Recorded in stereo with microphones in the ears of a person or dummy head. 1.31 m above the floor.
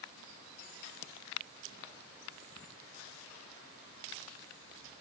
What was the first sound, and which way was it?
Only background noise.